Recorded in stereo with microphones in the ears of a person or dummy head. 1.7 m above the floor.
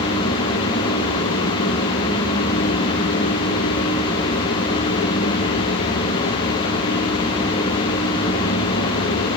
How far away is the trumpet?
I don't hear a trumpet.